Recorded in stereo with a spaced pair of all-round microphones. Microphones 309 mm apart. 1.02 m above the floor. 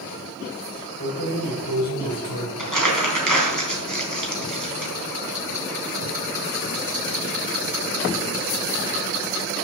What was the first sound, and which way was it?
Keys jangling, 70° left (ahead or behind).